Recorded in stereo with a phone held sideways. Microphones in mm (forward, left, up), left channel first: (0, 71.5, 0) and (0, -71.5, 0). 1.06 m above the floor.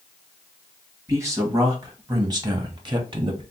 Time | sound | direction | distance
1.1 | a man speaking | 20° right (ahead or behind) | 1.5 m